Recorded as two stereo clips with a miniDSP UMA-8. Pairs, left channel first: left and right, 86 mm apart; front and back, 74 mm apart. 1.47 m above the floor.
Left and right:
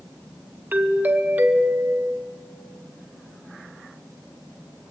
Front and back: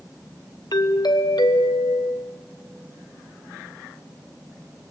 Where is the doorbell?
20° right, 1.2 m.